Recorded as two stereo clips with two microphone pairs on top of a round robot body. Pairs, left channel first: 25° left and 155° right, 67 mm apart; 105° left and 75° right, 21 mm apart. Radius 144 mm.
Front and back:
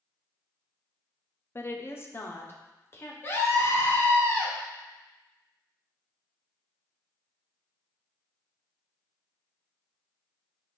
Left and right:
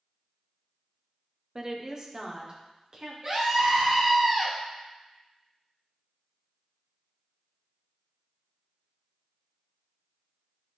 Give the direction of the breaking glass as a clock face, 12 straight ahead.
No breaking glass in this recording.